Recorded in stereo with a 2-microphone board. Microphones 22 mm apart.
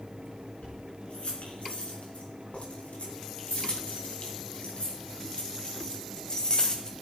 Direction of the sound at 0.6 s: 85° left.